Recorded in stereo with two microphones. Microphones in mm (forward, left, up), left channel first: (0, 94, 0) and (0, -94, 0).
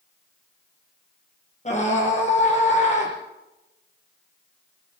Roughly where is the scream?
Left.